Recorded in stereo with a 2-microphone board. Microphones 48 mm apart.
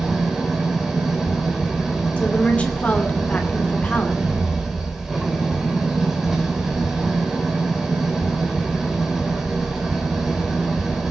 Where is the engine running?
5° right (ahead or behind), 3.5 m.